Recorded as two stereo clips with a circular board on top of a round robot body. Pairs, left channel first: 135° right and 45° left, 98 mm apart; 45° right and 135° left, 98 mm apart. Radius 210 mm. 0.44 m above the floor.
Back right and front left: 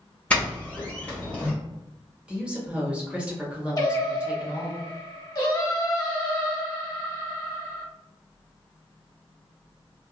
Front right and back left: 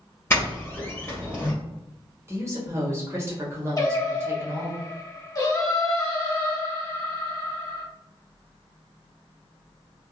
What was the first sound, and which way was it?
A doorbell, 75° right.